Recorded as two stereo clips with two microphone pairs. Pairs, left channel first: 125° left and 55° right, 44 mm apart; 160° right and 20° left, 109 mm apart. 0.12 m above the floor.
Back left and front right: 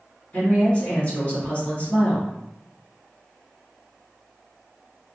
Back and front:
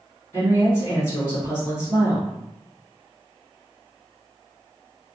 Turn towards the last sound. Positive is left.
turn(degrees=155)